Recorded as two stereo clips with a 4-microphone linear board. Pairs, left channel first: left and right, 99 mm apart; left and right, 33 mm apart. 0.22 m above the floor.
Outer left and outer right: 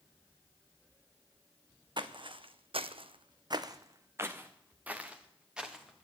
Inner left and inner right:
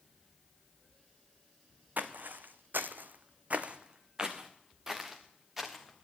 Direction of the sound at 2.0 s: 50° right (ahead or behind).